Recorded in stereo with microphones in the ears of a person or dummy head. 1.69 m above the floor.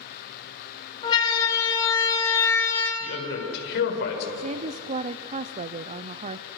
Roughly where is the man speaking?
Left.